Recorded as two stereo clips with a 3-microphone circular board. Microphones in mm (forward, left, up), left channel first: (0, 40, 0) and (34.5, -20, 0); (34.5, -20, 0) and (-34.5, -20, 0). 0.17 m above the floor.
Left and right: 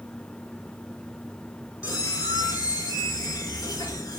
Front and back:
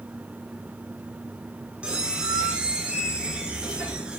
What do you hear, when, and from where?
1.8 s a squeak: 105° left, 0.6 m